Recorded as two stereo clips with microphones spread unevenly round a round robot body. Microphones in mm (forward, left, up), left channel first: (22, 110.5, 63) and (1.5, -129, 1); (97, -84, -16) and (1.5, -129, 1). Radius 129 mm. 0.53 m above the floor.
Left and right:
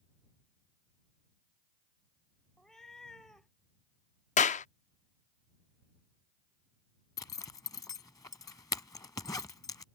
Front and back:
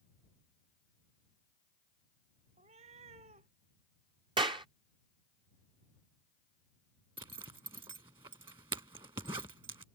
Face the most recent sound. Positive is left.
turn(degrees=155)